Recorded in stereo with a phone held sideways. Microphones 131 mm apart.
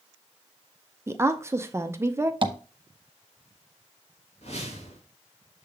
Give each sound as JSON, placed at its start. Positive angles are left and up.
{"t": 1.1, "sound": "a woman speaking", "side_deg": -20, "distance_m": 0.6}
{"t": 2.4, "sound": "tapping", "side_deg": -40, "distance_m": 0.8}
{"t": 4.4, "sound": "a whoosh", "side_deg": 55, "distance_m": 1.7}